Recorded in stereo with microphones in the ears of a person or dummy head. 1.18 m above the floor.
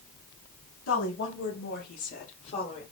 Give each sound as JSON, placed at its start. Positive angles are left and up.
{"t": 0.9, "sound": "a woman speaking", "side_deg": 70, "distance_m": 1.5}